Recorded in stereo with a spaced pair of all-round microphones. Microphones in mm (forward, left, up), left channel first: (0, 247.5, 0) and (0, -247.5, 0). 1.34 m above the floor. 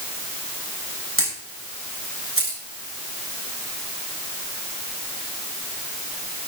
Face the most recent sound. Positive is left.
turn(degrees=-25)  # may be behind; listen again after turning